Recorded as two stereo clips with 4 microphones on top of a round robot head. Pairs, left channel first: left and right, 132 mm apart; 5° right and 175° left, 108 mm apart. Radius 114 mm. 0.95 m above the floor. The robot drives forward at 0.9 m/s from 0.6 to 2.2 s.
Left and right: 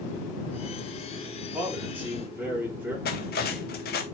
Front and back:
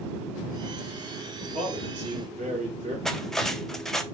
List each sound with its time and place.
1.5 s a man speaking: 165° right, 4 m
3.0 s cutlery clinking: 80° left, 0.8 m